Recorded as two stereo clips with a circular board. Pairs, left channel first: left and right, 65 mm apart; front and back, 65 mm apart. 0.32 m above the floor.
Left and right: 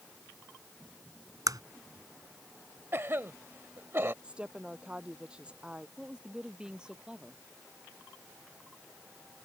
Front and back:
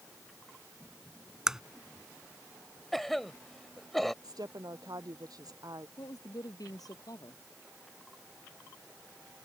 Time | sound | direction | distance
1.5 | a crack | 100° right | ?
2.9 | a cough | 85° right | ?
4.2 | a woman speaking | 165° right | ?
6.0 | a woman speaking | 15° right | ?